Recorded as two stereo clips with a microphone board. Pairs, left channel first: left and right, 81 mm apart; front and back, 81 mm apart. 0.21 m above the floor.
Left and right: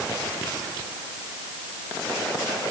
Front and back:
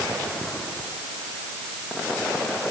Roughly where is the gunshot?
I don't hear a gunshot.